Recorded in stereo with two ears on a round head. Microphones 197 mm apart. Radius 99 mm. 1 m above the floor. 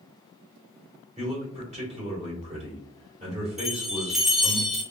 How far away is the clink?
No clink in this recording.